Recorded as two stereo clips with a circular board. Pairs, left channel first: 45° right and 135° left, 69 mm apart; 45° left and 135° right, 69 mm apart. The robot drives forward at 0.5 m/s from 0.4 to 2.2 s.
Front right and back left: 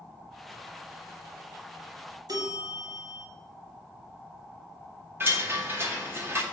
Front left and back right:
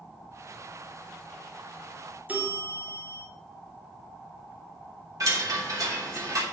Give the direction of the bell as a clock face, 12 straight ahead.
7 o'clock.